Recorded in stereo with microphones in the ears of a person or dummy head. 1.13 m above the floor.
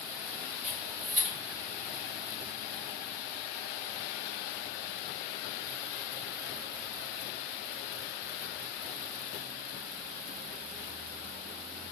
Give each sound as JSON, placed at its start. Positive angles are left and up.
{"t": 0.6, "sound": "a camera shutter", "side_deg": -35, "distance_m": 1.5}